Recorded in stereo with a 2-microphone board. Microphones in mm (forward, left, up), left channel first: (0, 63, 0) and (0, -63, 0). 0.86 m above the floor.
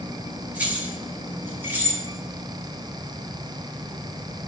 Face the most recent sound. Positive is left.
turn(degrees=-20)  # may be behind; listen again after turning